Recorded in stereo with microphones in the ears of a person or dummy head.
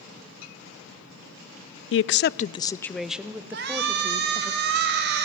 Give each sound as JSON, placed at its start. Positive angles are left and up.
{"t": 1.9, "sound": "a woman speaking", "side_deg": 65, "distance_m": 0.5}
{"t": 3.5, "sound": "a shout", "side_deg": -55, "distance_m": 3.5}